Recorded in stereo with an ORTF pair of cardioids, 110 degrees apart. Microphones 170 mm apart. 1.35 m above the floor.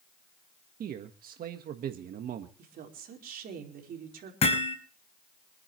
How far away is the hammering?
About 5.5 m.